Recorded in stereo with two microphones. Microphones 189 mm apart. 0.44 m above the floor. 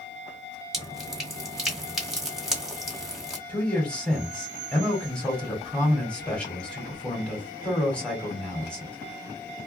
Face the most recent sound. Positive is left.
turn(degrees=5)  # may be behind; listen again after turning